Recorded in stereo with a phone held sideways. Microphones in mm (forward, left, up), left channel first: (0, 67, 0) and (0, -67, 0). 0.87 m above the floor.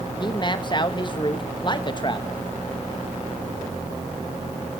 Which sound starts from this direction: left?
A man speaking, at 0.2 s.